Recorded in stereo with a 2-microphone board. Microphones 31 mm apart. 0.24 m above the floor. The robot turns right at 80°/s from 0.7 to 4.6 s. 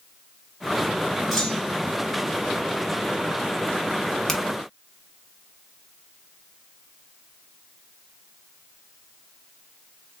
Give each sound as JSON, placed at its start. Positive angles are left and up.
{"t": 1.3, "sound": "a clunk", "azimuth_deg": 175, "distance_m": 1.0}
{"t": 4.3, "sound": "a finger snap", "side_deg": 15, "distance_m": 0.7}